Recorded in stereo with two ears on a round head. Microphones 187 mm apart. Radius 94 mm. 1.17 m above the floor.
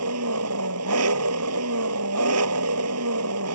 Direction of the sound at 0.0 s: 90° right.